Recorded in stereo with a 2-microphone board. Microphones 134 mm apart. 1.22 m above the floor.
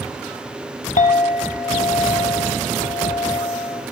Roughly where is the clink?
Left.